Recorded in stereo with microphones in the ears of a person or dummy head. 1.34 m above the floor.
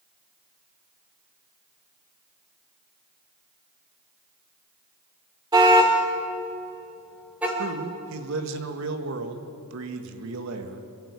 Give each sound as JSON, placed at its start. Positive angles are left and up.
{"t": 5.5, "sound": "a car horn", "side_deg": -25, "distance_m": 2.0}
{"t": 7.6, "sound": "a man speaking", "side_deg": -70, "distance_m": 1.8}